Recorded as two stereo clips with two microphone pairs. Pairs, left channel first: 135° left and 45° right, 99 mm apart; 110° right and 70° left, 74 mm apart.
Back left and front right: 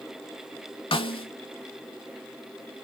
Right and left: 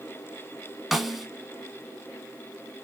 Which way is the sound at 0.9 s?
155° left.